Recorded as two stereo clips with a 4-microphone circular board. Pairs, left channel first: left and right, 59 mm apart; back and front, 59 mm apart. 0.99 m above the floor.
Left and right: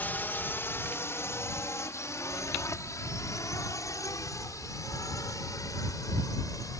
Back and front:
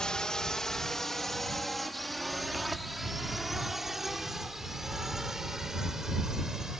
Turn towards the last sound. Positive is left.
turn(degrees=85)